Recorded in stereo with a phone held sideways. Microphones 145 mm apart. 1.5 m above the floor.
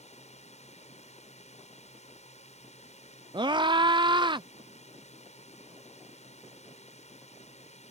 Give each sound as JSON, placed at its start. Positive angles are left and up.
{"t": 0.0, "sound": "a drone", "side_deg": 50}
{"t": 3.3, "sound": "a scream", "side_deg": -30}